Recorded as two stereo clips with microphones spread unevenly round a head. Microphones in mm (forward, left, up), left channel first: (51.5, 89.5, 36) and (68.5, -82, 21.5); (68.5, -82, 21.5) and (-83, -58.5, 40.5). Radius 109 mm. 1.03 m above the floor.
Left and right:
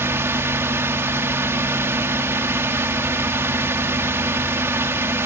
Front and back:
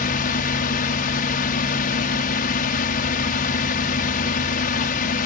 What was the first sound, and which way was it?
A drone, 10° right.